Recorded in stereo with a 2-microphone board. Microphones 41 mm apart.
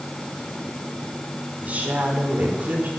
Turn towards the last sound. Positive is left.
turn(degrees=-45)  # may be behind; listen again after turning